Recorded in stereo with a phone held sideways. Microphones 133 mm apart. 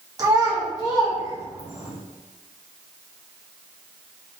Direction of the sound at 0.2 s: 30° right (ahead or behind).